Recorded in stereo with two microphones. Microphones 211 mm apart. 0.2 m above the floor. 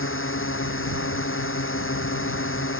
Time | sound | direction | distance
0.0 | a drone | 80° left | ?